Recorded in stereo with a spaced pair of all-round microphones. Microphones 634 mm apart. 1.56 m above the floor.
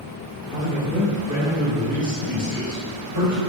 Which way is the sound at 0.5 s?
10° left (ahead or behind).